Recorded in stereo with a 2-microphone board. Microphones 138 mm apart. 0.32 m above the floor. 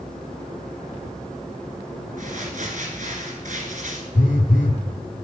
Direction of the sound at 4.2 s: 70° left (ahead or behind).